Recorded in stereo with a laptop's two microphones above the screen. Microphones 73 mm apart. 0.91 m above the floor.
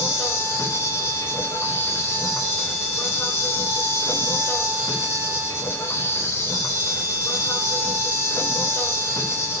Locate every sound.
0.0 s an insect: 40° left (ahead or behind), 4 m